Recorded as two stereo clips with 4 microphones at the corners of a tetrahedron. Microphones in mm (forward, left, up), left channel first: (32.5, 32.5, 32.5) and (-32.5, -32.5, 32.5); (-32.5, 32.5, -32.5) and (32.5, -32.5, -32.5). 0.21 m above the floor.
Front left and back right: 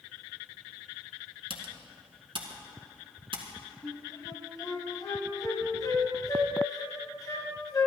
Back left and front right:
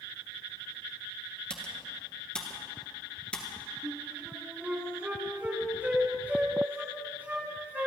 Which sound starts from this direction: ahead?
A flute, at 3.8 s.